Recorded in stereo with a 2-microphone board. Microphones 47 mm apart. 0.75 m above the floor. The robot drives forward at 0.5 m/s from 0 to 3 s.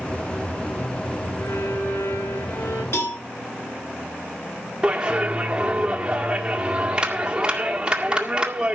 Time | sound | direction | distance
1.4 | a violin | 80° left | 7 m
2.9 | a cowbell | 60° left (ahead or behind) | 3.5 m
4.8 | a clap | 20° right (ahead or behind) | 1.9 m